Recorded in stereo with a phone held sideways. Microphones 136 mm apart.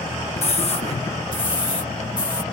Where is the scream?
50° left (ahead or behind); by 2.4 s 35° left (ahead or behind).